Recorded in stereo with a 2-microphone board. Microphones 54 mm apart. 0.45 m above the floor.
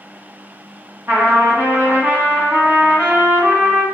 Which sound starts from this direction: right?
A trumpet, at 1.1 s.